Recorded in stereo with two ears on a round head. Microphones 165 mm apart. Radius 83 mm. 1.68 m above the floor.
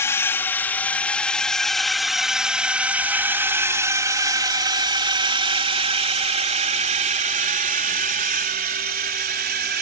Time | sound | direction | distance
0.0 | a drone | 15° left (ahead or behind) | ?